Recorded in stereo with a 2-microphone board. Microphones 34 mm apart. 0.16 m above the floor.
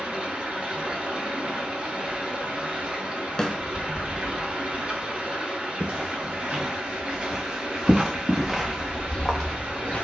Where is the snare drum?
20° left (ahead or behind), 0.7 m.